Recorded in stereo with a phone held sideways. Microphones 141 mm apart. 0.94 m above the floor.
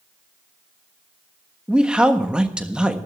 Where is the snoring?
I don't hear snoring.